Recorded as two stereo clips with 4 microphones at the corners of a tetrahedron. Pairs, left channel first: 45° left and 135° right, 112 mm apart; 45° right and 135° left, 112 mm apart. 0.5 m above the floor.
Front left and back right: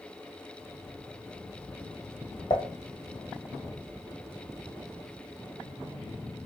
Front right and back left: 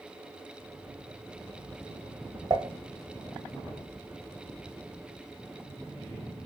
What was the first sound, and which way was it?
Dishes clattering, 95° left.